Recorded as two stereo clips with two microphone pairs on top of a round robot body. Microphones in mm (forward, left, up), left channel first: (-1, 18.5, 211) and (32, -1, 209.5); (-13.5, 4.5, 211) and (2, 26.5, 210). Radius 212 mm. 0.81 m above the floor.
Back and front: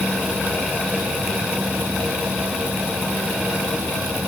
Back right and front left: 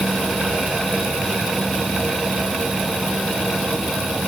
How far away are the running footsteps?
No running footsteps in this recording.